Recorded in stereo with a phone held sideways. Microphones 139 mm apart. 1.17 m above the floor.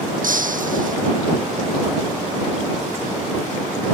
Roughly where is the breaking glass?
Right.